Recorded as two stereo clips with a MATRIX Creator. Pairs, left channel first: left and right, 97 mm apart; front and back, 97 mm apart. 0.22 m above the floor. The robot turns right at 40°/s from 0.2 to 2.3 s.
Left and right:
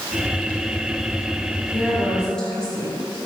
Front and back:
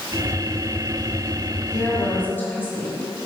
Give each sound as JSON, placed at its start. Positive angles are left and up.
{"t": 1.7, "sound": "a woman speaking", "azimuth_deg": -5, "distance_m": 1.6}